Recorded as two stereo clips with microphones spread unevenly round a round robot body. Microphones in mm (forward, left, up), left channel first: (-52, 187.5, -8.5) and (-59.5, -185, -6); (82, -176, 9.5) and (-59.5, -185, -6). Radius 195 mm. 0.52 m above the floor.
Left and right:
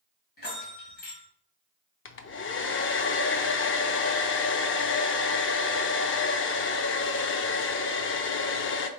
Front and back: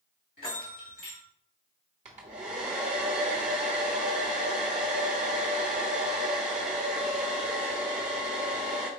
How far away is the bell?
About 2 m.